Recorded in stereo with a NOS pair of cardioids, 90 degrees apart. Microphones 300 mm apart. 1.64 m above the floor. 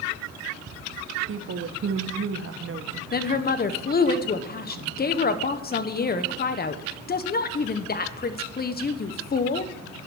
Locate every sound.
1.3 s a woman speaking: 45° right, 1.2 m
3.1 s a woman speaking: 30° left, 1.0 m